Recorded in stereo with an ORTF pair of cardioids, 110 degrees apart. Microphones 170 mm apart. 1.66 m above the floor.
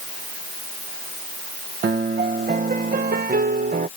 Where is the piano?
60° right.